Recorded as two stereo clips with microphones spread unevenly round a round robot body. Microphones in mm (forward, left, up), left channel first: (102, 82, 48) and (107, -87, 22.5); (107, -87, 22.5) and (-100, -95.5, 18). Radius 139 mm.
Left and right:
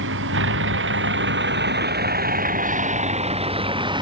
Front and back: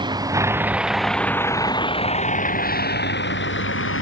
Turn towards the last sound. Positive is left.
turn(degrees=-25)